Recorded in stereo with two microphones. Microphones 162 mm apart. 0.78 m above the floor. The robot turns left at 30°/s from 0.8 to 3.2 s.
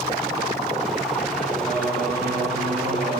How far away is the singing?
About 8.5 m.